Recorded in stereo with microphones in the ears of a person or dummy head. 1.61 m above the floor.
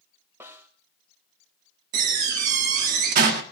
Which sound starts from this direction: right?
A door slam, at 1.9 s.